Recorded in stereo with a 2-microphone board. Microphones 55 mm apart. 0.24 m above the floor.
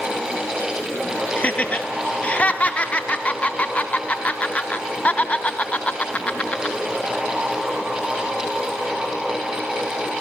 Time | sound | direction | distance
1.4 | laughter | 25° left (ahead or behind) | 1.5 m